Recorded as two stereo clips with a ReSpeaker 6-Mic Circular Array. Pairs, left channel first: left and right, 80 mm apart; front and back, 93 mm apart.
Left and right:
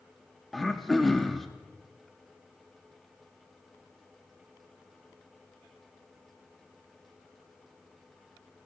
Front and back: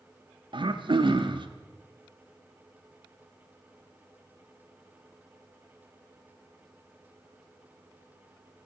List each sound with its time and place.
0.5 s throat clearing: straight behind, 0.7 m